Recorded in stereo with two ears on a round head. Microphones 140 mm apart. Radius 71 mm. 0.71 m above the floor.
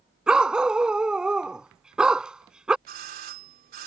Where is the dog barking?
5° right (ahead or behind).